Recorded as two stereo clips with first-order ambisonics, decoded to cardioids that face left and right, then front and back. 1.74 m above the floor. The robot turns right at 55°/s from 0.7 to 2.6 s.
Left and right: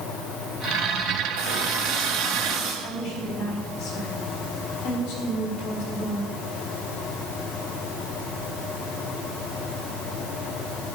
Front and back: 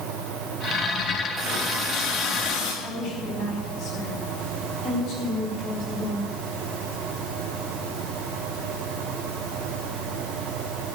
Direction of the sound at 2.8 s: 55° left.